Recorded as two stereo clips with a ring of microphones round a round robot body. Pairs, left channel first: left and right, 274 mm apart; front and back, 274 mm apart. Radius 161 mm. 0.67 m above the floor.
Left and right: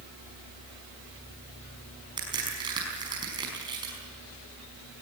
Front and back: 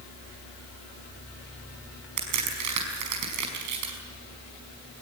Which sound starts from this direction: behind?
A crack, at 2.2 s.